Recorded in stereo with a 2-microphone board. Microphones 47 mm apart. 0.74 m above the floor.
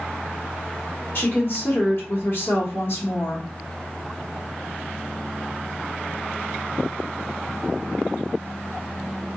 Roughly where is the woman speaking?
Left.